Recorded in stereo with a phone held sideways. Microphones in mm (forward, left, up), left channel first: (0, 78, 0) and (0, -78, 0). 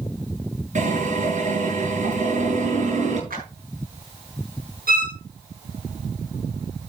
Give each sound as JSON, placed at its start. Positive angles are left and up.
{"t": 0.8, "sound": "a drill", "side_deg": -55, "distance_m": 9.5}
{"t": 3.3, "sound": "a clap", "side_deg": -75, "distance_m": 9.0}
{"t": 4.9, "sound": "a violin", "side_deg": -85, "distance_m": 9.0}